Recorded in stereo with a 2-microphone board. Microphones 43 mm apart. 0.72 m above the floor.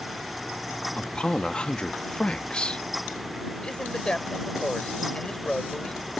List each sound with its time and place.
1.0 s a man speaking: 25° left (ahead or behind)
3.6 s a man speaking: 25° left (ahead or behind)